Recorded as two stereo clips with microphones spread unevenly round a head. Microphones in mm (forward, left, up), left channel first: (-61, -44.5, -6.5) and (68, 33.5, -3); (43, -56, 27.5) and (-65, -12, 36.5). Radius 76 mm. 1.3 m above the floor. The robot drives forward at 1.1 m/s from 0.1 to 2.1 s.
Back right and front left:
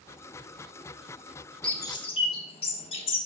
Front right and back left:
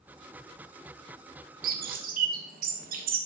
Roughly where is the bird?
Behind left.